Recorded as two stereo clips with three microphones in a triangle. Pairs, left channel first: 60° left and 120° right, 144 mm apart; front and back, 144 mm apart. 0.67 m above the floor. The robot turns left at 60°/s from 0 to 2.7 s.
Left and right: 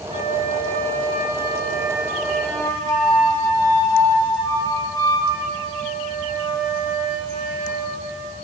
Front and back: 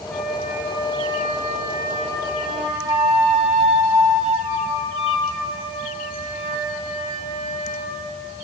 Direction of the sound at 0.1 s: 80° right.